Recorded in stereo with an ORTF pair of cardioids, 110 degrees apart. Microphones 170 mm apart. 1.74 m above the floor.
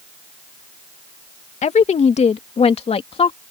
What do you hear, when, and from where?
1.6 s a woman speaking: 40° left; by 3.4 s 30° left